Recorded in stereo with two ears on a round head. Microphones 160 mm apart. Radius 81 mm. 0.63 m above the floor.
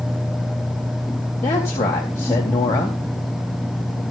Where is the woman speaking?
15° left (ahead or behind), 3.5 m.